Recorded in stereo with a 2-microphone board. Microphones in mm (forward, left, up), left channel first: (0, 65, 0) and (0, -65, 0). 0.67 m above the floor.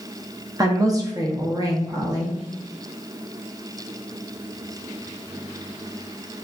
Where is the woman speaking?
25° right (ahead or behind), 0.7 m.